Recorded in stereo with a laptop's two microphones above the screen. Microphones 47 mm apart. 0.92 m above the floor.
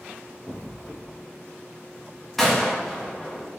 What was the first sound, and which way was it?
An explosion, 10° right (ahead or behind).